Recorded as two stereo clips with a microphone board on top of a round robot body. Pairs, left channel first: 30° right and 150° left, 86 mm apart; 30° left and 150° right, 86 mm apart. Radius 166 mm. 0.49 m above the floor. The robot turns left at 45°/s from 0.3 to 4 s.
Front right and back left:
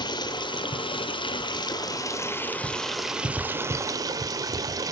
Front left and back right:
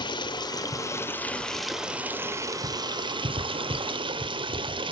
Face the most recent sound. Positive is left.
turn(degrees=-165)